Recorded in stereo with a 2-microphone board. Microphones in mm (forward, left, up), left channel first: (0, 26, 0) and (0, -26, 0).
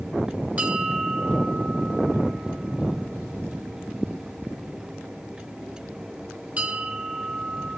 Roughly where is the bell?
Right.